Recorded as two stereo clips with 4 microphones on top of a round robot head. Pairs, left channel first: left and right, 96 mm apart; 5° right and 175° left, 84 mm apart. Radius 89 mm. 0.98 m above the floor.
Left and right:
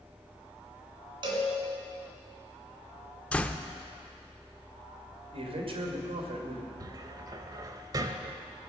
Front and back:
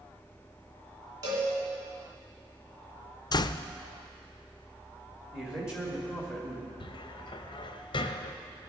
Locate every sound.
1.2 s a cowbell: 130° right, 2.5 m
3.3 s a door slam: 15° left, 0.5 m
5.3 s a man speaking: 105° right, 2.5 m
6.8 s a cupboard door: 35° right, 0.6 m